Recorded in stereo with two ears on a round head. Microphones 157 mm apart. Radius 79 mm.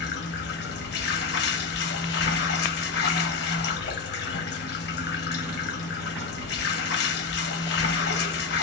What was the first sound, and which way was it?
Running water, 60° left (ahead or behind).